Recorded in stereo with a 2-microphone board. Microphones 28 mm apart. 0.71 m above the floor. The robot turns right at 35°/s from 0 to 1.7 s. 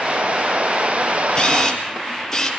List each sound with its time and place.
1.4 s a camera shutter: 30° left (ahead or behind), 4 m; by 2.5 s 15° left (ahead or behind), 4 m